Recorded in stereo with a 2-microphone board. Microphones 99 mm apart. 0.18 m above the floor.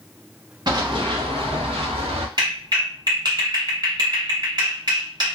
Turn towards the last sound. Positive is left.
turn(degrees=-45)  # may be behind; listen again after turning